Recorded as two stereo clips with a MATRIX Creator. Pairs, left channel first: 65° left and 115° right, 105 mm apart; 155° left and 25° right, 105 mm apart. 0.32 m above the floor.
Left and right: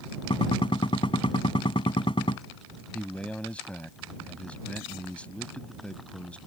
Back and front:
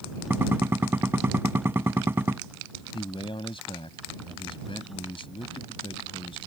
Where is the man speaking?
145° left.